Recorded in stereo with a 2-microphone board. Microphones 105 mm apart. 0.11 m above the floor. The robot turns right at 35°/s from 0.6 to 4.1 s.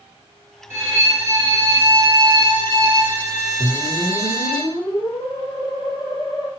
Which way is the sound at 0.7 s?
140° right.